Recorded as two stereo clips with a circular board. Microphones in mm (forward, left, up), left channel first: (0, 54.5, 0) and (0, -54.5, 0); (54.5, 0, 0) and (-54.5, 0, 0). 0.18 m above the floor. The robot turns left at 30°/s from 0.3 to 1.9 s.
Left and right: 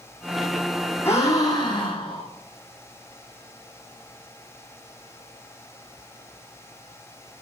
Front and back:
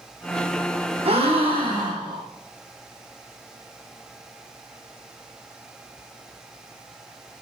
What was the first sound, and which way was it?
A gasp, 160° left.